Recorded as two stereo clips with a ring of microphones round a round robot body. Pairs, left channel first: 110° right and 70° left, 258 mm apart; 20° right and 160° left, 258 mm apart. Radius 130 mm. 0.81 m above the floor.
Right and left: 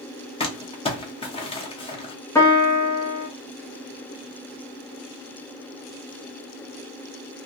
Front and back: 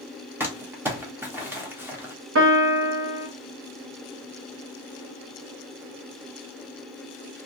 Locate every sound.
0.4 s crumpling: 135° right, 0.9 m
2.4 s a piano: 170° left, 0.9 m